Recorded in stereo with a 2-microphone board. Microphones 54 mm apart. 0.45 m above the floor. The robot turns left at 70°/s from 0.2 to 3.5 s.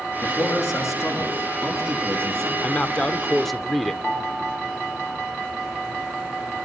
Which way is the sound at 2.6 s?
70° left.